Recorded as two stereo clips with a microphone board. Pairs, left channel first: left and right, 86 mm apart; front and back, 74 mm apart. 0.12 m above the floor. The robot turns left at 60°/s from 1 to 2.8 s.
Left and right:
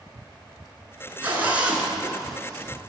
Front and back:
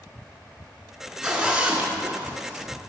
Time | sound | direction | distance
1.2 | a zipper | 115° right | 1.5 m